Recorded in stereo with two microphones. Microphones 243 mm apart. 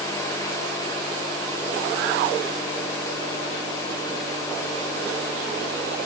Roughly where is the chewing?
I don't hear chewing.